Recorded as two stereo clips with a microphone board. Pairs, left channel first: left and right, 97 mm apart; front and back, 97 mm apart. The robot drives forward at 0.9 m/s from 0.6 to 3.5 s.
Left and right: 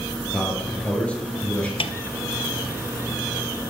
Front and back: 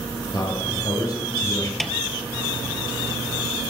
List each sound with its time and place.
0.3 s a man speaking: 15° left, 2.5 m; by 1.7 s 25° left, 2 m
1.8 s a snare drum: 90° left, 0.6 m; by 1.9 s 100° left, 0.6 m